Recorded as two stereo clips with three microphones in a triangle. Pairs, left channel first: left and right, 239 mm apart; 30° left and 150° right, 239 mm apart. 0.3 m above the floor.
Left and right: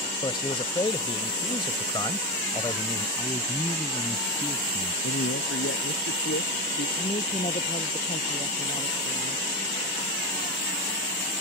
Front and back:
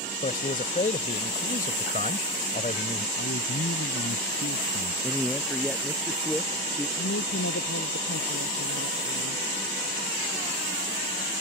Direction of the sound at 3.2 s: 20° left.